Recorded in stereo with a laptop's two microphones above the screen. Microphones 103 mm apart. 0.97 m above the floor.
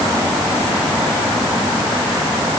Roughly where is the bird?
No bird in this recording.